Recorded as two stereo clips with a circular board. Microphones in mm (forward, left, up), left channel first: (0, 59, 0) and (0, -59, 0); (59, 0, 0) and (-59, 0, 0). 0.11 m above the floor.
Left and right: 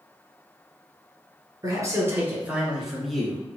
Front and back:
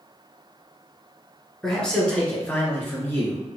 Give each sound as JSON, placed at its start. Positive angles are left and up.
{"t": 1.6, "sound": "a man speaking", "azimuth_deg": -80, "distance_m": 1.9}